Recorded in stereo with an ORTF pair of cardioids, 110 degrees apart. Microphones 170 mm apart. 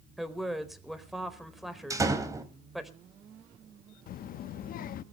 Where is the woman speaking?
Straight ahead, 4 m.